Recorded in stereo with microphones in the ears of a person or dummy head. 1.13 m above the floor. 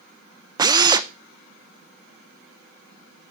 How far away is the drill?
About 0.6 m.